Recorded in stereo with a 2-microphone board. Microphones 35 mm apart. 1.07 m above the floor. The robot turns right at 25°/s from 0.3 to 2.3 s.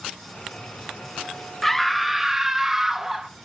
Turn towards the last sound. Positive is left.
turn(degrees=-10)  # may be behind; listen again after turning